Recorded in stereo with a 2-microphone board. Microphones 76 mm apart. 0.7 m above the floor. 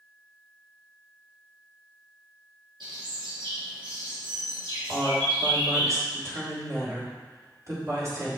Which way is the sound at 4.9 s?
40° right (ahead or behind).